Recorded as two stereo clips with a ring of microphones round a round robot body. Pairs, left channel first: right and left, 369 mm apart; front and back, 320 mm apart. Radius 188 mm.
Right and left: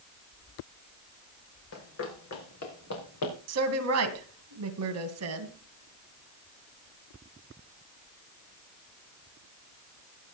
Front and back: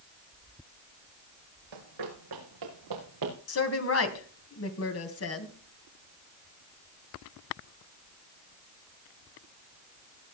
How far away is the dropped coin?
I don't hear a dropped coin.